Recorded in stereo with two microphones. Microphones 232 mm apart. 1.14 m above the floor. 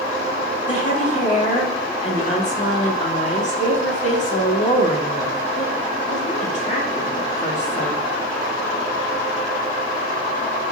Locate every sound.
0.7 s a woman speaking: 30° left (ahead or behind), 2.5 m